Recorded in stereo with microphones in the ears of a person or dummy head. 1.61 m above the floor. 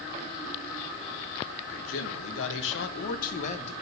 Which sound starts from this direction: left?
A man speaking, at 1.7 s.